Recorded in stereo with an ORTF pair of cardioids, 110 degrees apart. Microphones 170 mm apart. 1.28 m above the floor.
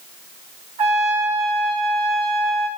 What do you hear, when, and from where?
0.8 s a trumpet: 40° right, 4.5 m